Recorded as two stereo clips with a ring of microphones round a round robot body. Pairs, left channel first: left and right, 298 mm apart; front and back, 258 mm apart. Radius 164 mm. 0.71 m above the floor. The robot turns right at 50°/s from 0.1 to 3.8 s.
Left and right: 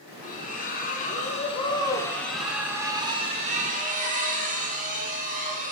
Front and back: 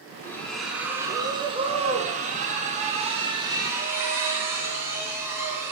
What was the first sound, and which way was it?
A splash, 70° left.